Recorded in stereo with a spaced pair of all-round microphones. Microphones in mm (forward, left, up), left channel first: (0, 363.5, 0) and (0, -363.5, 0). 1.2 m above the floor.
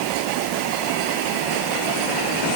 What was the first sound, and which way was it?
Only background noise.